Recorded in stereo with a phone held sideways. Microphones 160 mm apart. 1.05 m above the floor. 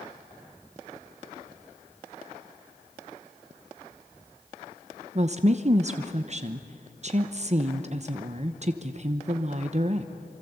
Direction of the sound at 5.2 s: 45° right (ahead or behind).